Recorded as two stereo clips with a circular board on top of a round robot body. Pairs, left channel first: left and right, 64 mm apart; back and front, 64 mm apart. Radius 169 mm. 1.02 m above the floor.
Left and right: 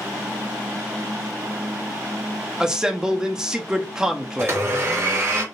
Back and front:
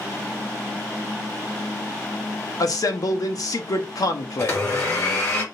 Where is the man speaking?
170° right, 1.0 m.